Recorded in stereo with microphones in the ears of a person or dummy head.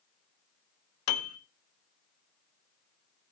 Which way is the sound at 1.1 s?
75° left (ahead or behind).